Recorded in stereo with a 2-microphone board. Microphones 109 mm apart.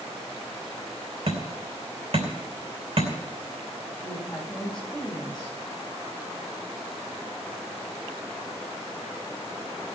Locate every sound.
1.3 s hammering: 60° right (ahead or behind), 3 m
4.0 s a woman speaking: 5° left (ahead or behind), 7.5 m